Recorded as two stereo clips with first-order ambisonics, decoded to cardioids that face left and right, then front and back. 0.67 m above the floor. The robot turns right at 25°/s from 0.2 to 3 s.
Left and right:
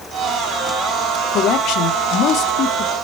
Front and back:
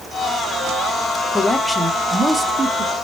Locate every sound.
1.3 s a man speaking: 80° left, 1.1 m; by 3.0 s 120° left, 1.1 m